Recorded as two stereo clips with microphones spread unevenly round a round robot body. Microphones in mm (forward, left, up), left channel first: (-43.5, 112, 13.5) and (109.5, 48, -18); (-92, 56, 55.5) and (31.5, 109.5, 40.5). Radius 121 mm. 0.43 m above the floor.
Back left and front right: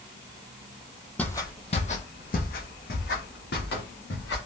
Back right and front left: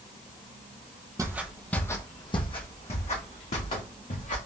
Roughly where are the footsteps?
Left.